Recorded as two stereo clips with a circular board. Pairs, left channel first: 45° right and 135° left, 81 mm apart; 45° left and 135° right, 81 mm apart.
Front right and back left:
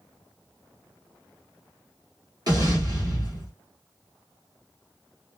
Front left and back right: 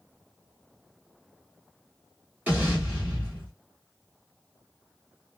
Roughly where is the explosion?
Behind.